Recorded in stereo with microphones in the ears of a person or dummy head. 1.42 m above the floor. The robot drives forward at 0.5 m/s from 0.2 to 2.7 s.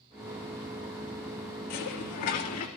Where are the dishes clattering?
50° left (ahead or behind), 1.9 m; by 2.7 s 45° left (ahead or behind), 2 m.